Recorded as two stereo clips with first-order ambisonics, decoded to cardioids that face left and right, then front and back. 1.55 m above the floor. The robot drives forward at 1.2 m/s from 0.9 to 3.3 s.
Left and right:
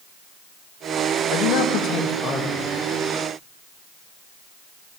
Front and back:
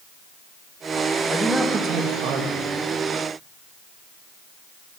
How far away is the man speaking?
About 0.8 m.